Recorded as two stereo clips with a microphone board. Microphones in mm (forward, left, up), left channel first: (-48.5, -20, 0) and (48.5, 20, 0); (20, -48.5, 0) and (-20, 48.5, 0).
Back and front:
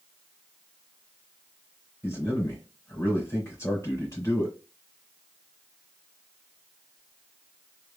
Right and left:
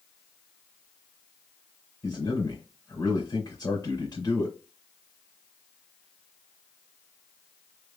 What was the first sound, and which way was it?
A man speaking, 105° right.